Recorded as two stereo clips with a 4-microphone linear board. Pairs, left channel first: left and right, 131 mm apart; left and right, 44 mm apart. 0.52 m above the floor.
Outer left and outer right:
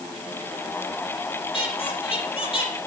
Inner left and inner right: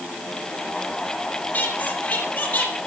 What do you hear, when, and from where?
1.5 s a squeak: 45° left (ahead or behind), 4.5 m